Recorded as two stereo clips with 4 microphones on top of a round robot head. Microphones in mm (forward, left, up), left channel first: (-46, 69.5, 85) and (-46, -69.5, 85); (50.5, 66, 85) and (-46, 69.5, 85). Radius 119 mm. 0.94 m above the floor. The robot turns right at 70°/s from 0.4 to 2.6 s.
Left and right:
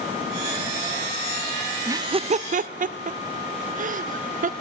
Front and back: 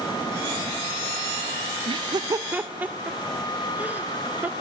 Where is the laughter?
160° right, 0.6 m; by 4.5 s 110° right, 0.6 m.